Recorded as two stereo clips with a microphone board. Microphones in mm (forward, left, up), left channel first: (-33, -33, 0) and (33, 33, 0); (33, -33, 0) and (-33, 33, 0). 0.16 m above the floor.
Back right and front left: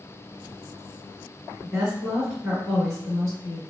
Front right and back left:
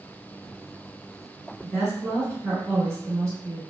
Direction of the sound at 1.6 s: 140° left.